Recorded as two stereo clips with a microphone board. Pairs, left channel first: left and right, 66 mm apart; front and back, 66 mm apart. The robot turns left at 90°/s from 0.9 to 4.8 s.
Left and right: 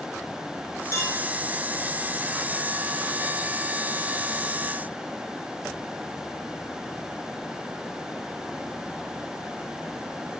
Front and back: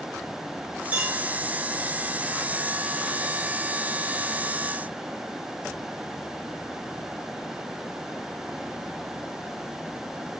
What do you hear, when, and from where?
0.9 s a clink: 115° left, 1.6 m; by 1.2 s 90° left, 1.6 m